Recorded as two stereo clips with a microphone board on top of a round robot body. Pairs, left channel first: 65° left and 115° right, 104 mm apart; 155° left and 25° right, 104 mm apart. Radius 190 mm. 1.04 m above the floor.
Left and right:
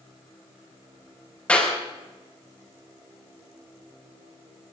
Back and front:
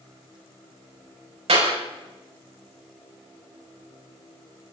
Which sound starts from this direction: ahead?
A clap, at 1.5 s.